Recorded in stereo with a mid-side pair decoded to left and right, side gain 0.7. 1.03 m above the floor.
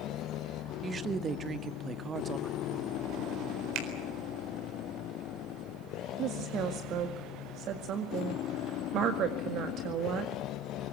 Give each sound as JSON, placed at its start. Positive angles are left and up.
{"t": 0.8, "sound": "a woman speaking", "azimuth_deg": -25, "distance_m": 1.5}
{"t": 3.8, "sound": "a finger snap", "azimuth_deg": -60, "distance_m": 4.0}
{"t": 6.2, "sound": "a woman speaking", "azimuth_deg": -50, "distance_m": 1.9}